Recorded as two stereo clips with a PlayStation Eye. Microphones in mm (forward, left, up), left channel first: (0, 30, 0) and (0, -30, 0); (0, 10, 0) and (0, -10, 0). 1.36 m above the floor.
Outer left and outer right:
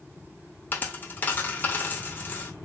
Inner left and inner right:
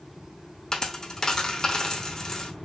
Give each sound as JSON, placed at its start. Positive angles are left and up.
{"t": 0.7, "sound": "a dropped coin", "side_deg": 30, "distance_m": 0.8}